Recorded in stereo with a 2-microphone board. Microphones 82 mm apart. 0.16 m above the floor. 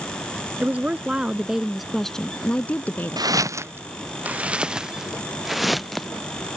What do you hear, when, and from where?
0.6 s a woman speaking: 20° right (ahead or behind); by 3.4 s 30° left (ahead or behind)
3.2 s footsteps: 55° right (ahead or behind); by 6.1 s centre (ahead or behind)